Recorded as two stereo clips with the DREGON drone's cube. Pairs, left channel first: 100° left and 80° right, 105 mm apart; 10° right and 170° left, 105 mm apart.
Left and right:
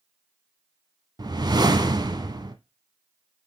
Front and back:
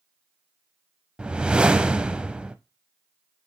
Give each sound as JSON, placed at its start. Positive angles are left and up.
{"t": 1.2, "sound": "a whoosh", "azimuth_deg": -110, "distance_m": 0.5}